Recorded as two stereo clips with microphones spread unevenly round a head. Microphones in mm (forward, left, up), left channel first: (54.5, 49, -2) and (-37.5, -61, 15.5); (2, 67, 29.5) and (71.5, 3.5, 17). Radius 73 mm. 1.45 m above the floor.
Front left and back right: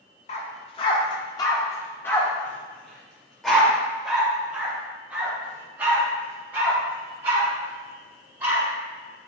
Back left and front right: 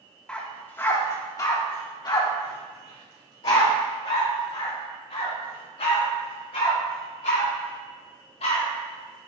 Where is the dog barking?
75° left, 1.1 m; by 8.6 s 155° left, 4.5 m.